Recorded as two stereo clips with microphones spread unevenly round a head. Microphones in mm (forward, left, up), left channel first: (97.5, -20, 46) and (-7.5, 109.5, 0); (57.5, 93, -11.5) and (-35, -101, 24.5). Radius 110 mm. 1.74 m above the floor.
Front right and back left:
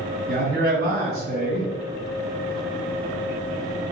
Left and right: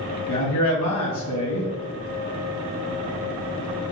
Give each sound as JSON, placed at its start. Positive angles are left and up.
{"t": 0.3, "sound": "a man speaking", "azimuth_deg": 85, "distance_m": 2.0}